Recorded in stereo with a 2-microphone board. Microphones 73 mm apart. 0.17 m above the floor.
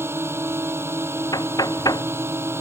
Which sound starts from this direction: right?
A drone, at 0.0 s.